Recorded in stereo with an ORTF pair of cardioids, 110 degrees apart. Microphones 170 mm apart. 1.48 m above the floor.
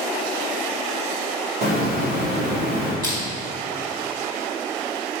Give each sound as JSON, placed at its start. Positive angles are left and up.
{"t": 1.6, "sound": "a hiss", "azimuth_deg": -65, "distance_m": 1.3}
{"t": 3.0, "sound": "crushing", "azimuth_deg": -25, "distance_m": 1.7}